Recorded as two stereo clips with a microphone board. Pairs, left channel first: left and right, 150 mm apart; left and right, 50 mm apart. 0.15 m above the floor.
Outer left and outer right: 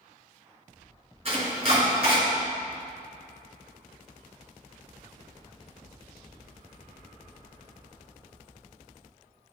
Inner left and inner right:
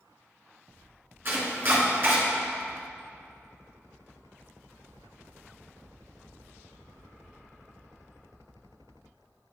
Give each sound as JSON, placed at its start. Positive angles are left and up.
{"t": 1.2, "sound": "chopping", "side_deg": -45, "distance_m": 1.8}